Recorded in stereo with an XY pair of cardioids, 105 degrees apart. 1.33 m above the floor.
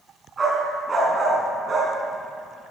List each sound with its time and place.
0.4 s a dog barking: 35° right, 4.5 m